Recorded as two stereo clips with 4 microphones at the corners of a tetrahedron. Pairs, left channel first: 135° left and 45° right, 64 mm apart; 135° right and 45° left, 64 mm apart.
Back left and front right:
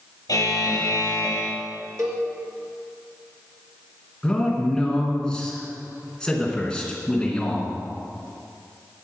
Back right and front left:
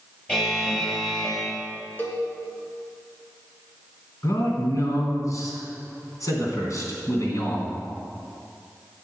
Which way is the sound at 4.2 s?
150° right.